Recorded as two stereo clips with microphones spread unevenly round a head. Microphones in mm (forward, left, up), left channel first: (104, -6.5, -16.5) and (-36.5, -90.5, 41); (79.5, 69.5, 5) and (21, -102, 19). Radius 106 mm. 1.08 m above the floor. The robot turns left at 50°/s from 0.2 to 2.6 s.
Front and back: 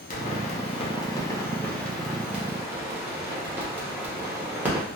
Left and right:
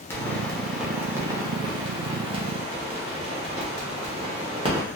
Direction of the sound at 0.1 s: Straight ahead.